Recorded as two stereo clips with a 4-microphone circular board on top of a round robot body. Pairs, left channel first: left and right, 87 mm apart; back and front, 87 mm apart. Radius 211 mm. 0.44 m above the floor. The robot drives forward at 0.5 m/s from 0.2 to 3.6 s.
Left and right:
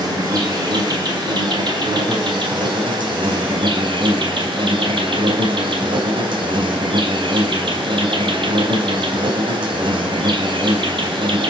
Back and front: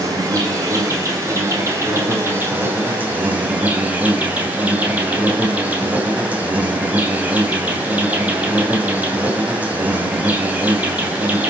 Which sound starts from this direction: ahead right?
An insect, at 0.0 s.